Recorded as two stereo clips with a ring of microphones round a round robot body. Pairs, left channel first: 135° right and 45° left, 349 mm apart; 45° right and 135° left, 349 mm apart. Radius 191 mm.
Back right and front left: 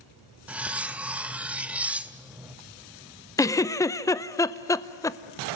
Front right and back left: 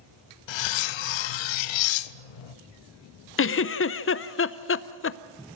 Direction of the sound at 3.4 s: 60° right.